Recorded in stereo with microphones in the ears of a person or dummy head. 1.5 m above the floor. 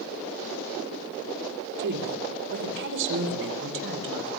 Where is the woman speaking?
60° right (ahead or behind), 3.5 m; by 4.3 s 70° right (ahead or behind), 6 m.